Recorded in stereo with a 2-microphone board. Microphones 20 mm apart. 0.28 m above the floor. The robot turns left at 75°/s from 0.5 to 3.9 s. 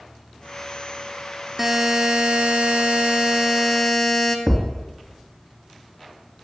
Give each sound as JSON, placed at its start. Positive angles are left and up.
{"t": 1.6, "sound": "a buzzer", "azimuth_deg": -5, "distance_m": 2.0}
{"t": 4.5, "sound": "a thud", "side_deg": -45, "distance_m": 1.9}